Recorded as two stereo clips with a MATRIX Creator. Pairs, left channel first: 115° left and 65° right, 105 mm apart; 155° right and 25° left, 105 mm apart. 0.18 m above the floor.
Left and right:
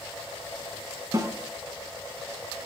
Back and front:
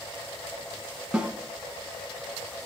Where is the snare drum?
50° right, 1.1 m.